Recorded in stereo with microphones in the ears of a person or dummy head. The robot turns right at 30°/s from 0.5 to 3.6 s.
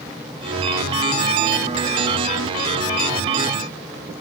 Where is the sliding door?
I don't hear a sliding door.